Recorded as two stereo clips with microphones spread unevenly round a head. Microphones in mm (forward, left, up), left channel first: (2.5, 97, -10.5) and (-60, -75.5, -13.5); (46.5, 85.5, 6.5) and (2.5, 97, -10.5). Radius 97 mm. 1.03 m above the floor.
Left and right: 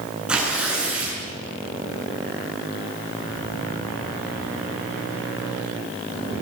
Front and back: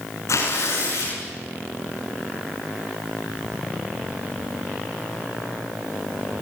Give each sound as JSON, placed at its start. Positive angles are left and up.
{"t": 0.3, "sound": "tearing paper", "azimuth_deg": -25, "distance_m": 8.0}